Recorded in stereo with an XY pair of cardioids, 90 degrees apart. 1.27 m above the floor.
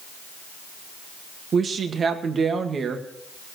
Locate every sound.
1.5 s a woman speaking: 55° right, 1.8 m